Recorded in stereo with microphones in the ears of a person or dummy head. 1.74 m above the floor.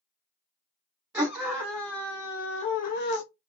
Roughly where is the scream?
Right.